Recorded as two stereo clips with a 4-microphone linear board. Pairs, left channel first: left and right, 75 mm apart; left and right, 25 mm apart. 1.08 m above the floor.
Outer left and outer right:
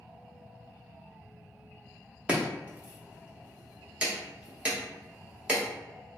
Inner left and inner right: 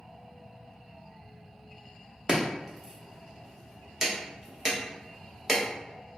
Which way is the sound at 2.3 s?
20° right (ahead or behind).